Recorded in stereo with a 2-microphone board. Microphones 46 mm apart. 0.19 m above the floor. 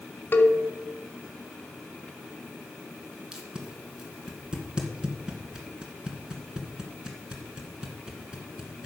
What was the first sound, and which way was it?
A cowbell, 45° left (ahead or behind).